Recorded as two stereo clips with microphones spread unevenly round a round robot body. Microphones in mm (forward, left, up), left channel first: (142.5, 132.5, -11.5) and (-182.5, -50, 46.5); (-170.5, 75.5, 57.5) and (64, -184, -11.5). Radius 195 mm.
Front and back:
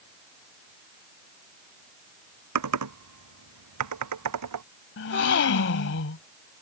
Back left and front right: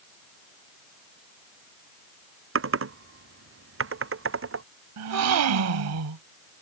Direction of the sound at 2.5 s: 100° right.